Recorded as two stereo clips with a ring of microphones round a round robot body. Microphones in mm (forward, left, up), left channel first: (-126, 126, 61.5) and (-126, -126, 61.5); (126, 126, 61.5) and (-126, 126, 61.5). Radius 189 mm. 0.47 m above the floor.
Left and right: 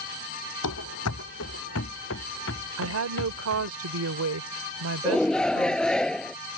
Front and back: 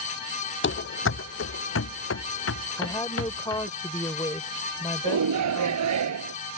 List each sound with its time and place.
0.6 s running footsteps: 40° left; by 3.7 s 30° left
2.8 s a woman speaking: 75° right
5.0 s a shout: 175° left